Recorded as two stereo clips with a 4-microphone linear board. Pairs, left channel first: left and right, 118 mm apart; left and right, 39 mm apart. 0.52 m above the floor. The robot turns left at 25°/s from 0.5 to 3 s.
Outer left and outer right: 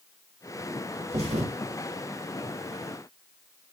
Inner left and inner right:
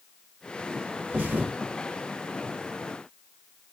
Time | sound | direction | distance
1.1 | a thud | 60° right (ahead or behind) | 1.0 m